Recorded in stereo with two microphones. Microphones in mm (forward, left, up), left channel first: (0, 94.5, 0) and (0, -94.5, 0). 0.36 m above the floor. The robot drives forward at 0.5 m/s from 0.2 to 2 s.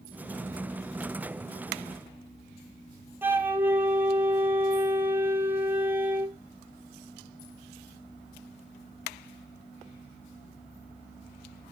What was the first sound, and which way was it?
A flute, 10° right (ahead or behind).